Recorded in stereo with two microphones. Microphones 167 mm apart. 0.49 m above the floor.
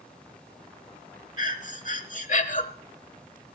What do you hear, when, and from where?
1.4 s breathing: 50° left (ahead or behind), 1.0 m